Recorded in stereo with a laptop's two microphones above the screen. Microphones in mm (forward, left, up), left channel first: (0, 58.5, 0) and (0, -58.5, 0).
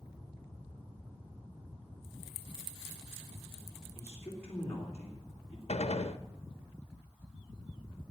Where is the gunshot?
65° left (ahead or behind), 0.8 m.